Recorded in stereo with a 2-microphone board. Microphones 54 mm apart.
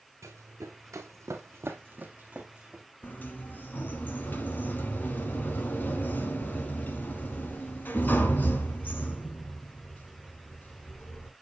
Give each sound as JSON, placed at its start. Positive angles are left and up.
{"t": 0.2, "sound": "running footsteps", "side_deg": -65, "distance_m": 1.8}
{"t": 3.0, "sound": "a sliding door", "side_deg": 35, "distance_m": 1.0}